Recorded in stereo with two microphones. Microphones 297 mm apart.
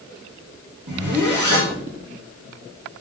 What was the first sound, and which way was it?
A zipper, 85° right.